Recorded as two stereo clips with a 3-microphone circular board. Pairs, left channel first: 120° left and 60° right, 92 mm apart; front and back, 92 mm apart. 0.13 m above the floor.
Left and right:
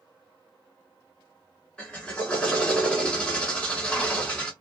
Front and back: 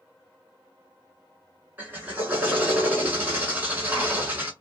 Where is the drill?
165° left, 1.1 m.